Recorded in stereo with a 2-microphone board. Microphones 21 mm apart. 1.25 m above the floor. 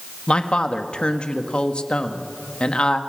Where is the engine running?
No engine running in this recording.